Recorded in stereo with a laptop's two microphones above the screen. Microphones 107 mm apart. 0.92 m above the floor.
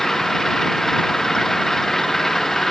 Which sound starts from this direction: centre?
An engine running, at 0.0 s.